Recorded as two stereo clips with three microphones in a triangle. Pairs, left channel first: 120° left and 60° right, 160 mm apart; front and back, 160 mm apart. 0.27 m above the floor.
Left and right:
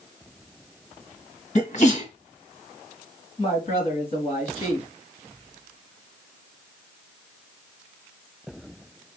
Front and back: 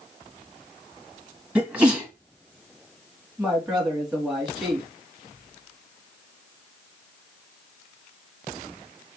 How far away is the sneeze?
About 1.5 m.